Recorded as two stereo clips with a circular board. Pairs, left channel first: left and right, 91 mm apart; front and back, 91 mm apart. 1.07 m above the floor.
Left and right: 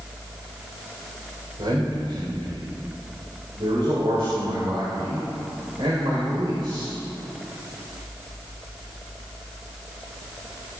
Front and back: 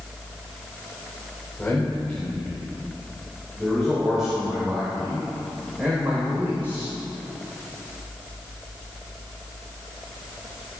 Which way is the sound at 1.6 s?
75° right.